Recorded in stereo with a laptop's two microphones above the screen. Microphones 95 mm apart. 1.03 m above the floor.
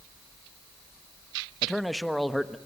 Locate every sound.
1.6 s a man speaking: centre (ahead or behind), 1.2 m